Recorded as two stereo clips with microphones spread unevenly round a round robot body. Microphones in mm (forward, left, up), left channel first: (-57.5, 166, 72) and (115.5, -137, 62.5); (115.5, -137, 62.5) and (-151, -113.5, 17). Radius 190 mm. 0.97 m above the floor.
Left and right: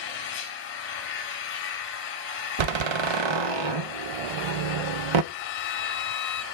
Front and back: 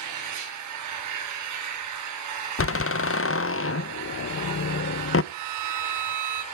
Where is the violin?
Straight behind, 1.1 m.